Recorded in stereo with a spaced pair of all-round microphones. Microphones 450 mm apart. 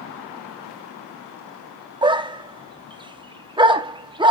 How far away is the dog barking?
About 0.9 m.